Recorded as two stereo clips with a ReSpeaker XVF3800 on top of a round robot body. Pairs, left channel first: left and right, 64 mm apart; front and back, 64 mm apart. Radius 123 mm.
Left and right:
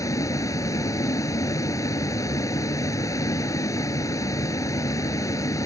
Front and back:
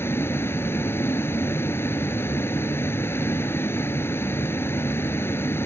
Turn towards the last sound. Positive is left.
turn(degrees=55)